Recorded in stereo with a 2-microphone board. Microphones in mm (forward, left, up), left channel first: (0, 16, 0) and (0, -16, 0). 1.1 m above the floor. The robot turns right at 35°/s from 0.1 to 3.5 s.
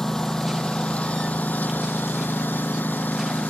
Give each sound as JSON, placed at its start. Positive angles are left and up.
{"t": 0.0, "sound": "a lawn mower", "side_deg": 15}